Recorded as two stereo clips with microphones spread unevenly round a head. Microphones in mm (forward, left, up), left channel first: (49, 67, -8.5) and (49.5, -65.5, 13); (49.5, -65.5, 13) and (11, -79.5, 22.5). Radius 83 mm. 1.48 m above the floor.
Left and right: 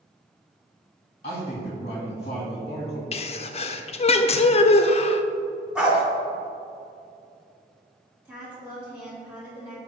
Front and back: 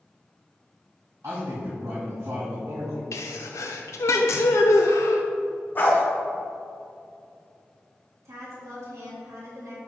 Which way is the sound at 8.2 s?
175° right.